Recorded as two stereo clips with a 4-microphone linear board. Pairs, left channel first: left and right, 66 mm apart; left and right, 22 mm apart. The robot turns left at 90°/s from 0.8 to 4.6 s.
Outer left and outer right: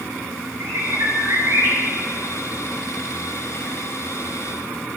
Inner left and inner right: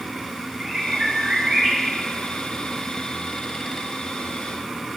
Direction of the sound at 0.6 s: 65° right.